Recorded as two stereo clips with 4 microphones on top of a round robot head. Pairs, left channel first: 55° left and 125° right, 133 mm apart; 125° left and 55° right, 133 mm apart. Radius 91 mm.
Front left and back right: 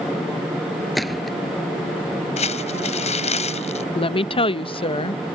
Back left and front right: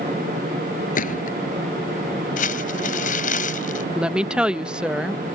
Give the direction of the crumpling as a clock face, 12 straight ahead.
9 o'clock.